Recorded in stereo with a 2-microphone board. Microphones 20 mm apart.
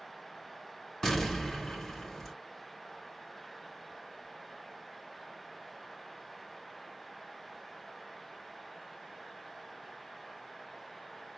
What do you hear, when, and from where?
1.0 s an explosion: 20° left (ahead or behind), 3.5 m